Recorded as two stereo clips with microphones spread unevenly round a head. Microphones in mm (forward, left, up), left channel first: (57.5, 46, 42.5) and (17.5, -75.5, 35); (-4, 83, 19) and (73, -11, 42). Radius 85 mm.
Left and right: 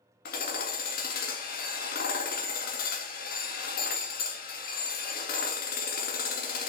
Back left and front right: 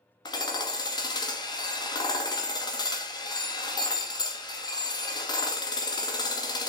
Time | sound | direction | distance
0.2 | hammering | 70° left | 1.9 m